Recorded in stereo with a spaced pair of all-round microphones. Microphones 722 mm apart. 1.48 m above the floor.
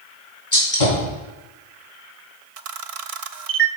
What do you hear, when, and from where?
0.5 s a gunshot: 65° left (ahead or behind), 3.5 m
2.6 s a camera shutter: 55° right (ahead or behind), 0.5 m